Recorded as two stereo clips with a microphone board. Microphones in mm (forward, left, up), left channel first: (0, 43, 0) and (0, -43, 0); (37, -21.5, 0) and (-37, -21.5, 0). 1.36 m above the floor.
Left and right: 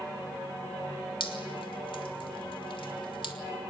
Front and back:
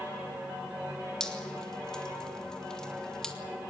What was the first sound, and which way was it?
Dripping, 80° left.